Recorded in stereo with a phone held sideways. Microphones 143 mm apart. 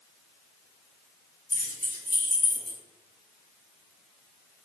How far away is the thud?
I don't hear a thud.